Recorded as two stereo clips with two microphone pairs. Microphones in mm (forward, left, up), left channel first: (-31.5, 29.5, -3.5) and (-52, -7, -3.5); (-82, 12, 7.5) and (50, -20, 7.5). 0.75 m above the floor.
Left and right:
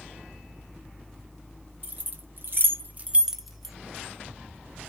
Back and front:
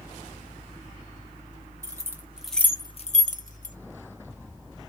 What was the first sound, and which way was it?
Keys jangling, 80° right.